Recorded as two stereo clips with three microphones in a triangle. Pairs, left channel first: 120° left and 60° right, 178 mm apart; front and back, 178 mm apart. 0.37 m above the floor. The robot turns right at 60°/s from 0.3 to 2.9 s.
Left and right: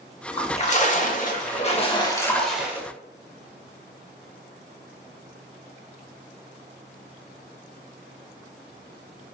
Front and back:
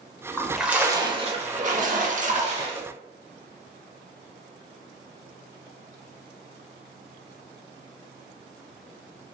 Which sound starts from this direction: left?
A splash, at 0.4 s.